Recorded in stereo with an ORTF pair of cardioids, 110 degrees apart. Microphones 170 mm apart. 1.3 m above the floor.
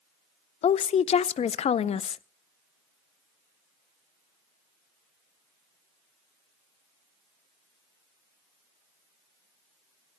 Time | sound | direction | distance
0.6 | a woman speaking | 40° left | 0.5 m